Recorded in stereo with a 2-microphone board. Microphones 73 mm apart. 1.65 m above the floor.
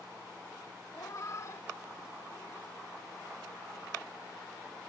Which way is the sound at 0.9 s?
45° left (ahead or behind).